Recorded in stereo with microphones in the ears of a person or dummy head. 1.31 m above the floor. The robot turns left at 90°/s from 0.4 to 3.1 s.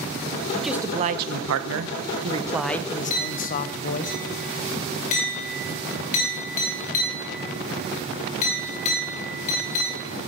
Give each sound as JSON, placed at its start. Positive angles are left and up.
{"t": 0.5, "sound": "a man speaking", "azimuth_deg": 10, "distance_m": 0.7}
{"t": 3.1, "sound": "a clink", "side_deg": 40, "distance_m": 3.0}